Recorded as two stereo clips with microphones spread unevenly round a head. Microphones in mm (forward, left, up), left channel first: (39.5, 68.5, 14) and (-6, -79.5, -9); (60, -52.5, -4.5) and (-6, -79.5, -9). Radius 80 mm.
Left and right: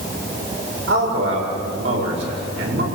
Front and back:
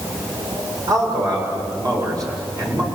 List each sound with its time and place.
0.9 s a man speaking: 120° right, 8 m